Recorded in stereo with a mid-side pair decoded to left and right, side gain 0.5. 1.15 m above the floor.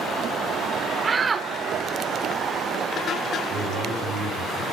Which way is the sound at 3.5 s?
60° right.